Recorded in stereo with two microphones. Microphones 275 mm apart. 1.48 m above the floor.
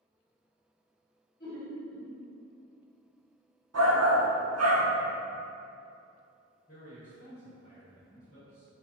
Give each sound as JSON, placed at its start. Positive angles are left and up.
{"t": 1.4, "sound": "laughter", "side_deg": 40, "distance_m": 0.9}
{"t": 3.7, "sound": "a shout", "side_deg": -65, "distance_m": 0.5}
{"t": 6.7, "sound": "a man speaking", "side_deg": 45, "distance_m": 0.9}